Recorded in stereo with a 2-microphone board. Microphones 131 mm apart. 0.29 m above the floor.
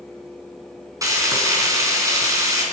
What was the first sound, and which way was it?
Frying, 25° right (ahead or behind).